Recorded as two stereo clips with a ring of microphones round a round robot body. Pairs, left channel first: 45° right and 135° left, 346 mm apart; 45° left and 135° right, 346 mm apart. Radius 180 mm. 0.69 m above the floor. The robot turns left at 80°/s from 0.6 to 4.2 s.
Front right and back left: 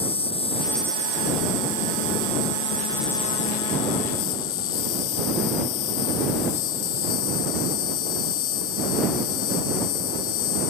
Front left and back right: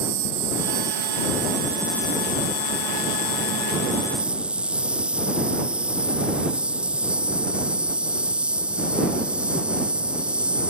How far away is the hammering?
I don't hear hammering.